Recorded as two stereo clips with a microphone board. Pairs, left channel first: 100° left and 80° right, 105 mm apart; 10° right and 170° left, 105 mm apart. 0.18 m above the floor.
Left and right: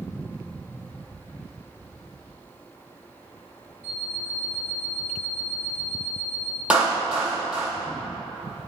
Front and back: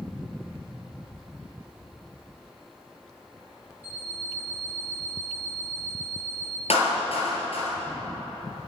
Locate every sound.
3.8 s an alarm clock: 70° right, 1.8 m
6.7 s a clap: straight ahead, 3.5 m